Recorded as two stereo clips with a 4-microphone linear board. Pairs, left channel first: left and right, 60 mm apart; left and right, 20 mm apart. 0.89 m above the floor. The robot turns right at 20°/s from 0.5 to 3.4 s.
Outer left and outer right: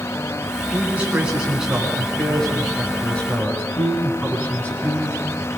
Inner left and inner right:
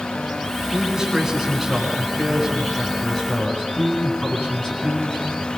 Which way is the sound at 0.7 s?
25° right.